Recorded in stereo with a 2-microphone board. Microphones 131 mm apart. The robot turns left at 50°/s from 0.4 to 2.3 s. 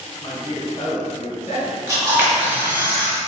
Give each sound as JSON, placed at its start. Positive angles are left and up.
{"t": 0.2, "sound": "a man speaking", "azimuth_deg": 130, "distance_m": 1.7}
{"t": 1.9, "sound": "a camera shutter", "side_deg": -25, "distance_m": 1.2}